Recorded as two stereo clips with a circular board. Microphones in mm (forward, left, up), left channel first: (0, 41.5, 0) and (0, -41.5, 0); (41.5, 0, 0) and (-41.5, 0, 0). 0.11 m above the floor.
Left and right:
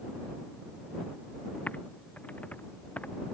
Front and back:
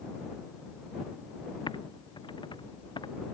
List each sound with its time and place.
1.7 s typing on a keyboard: 20° left